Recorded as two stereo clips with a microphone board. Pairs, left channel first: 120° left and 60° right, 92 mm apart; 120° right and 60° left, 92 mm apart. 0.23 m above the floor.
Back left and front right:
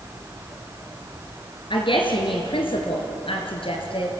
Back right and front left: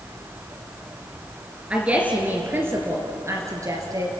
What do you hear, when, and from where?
1.7 s a woman speaking: 135° left, 3 m; by 4.1 s 110° left, 4 m